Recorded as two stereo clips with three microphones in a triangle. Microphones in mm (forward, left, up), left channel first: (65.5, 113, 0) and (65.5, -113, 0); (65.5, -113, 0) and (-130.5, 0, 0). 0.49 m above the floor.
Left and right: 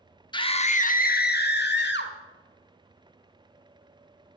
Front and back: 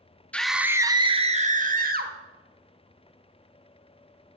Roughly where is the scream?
Ahead left.